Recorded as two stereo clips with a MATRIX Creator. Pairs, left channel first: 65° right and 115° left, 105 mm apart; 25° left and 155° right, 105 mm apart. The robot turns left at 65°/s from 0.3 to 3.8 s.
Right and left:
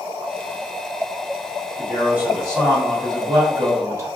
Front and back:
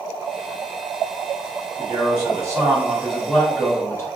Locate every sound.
1.8 s a man speaking: 160° right, 1.4 m; by 4.1 s 70° left, 1.4 m